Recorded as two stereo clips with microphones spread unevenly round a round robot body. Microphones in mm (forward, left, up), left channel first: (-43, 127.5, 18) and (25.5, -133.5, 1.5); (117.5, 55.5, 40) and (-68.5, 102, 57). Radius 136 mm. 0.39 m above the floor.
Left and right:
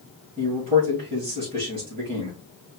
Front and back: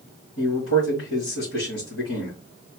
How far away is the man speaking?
About 3 m.